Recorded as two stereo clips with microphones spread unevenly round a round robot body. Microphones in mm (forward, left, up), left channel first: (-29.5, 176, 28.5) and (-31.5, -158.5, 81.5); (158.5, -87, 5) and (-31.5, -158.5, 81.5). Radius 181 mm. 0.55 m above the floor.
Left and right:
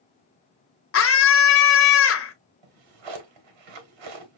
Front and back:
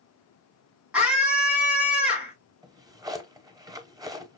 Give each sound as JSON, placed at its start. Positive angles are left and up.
{"t": 0.9, "sound": "a scream", "azimuth_deg": 95, "distance_m": 1.0}
{"t": 2.6, "sound": "a drawer", "azimuth_deg": -85, "distance_m": 1.0}